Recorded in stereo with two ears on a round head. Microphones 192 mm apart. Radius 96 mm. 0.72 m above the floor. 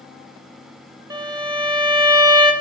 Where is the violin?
20° right (ahead or behind), 1.5 m.